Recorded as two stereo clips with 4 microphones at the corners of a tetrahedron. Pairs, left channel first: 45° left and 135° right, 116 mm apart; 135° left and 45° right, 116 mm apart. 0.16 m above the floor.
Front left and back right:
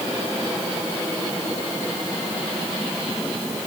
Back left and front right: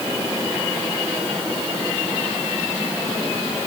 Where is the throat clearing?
I don't hear throat clearing.